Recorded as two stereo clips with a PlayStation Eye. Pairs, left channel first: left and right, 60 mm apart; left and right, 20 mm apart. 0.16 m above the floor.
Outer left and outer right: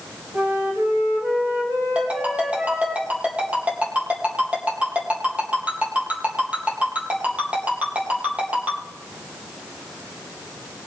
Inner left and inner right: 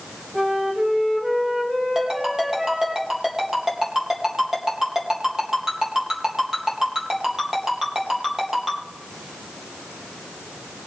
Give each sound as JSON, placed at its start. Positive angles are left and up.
{"t": 0.3, "sound": "a flute", "side_deg": -55, "distance_m": 5.5}
{"t": 1.9, "sound": "a ringtone", "side_deg": -20, "distance_m": 3.5}